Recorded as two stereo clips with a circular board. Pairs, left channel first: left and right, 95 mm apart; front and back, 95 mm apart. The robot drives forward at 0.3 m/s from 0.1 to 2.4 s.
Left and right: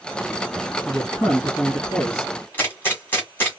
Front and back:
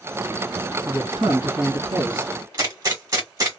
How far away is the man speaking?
About 2.0 m.